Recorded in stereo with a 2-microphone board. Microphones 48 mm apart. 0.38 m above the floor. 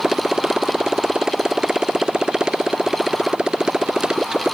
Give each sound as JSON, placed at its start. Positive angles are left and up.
{"t": 0.0, "sound": "a motorcycle", "side_deg": -15}